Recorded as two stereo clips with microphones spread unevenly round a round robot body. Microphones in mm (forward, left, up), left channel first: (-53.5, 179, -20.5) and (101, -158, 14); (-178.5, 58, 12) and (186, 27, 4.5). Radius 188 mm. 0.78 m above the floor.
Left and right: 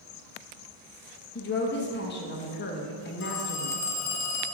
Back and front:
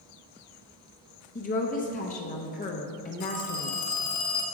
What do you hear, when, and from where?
1.4 s a woman speaking: 125° left, 0.8 m
3.2 s a phone ringing: 165° left, 1.5 m